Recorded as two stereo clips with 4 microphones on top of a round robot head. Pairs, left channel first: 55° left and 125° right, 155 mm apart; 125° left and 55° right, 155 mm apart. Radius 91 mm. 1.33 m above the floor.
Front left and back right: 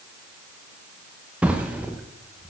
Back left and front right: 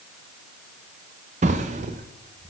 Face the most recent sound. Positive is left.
turn(degrees=-50)